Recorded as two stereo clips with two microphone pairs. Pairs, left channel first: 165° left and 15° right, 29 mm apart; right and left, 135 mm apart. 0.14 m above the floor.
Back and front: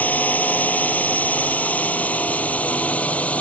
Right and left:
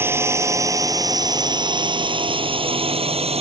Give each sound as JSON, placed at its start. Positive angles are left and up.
{"t": 0.0, "sound": "a drone", "azimuth_deg": 160}